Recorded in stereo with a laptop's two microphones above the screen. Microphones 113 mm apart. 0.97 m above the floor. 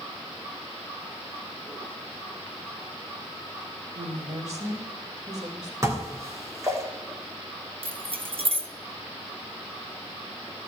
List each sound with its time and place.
4.0 s a woman speaking: 85° right, 3 m
5.8 s dishes clattering: 25° right (ahead or behind), 1.6 m
7.8 s keys jangling: 55° right (ahead or behind), 0.9 m